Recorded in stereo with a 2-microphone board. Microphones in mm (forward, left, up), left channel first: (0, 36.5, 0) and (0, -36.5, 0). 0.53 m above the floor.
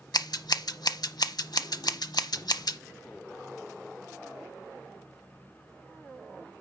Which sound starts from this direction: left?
Scissors, at 0.1 s.